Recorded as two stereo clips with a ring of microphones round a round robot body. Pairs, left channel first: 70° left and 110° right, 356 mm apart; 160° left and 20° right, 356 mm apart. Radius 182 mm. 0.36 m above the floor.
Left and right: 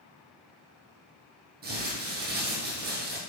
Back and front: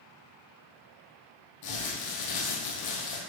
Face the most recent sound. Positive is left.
turn(degrees=-175)